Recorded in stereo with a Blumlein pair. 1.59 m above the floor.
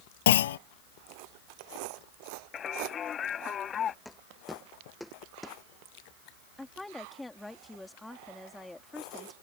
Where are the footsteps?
Straight ahead.